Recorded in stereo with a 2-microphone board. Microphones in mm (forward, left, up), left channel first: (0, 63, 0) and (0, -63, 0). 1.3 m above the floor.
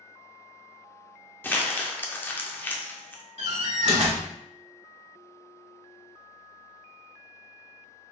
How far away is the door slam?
About 1.0 m.